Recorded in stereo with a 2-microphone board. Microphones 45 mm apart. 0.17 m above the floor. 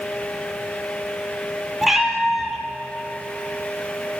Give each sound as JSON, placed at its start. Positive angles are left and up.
{"t": 1.8, "sound": "a cat meowing", "side_deg": -5, "distance_m": 1.9}